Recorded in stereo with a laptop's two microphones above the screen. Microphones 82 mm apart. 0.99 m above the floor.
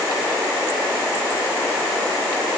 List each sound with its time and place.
Only background noise.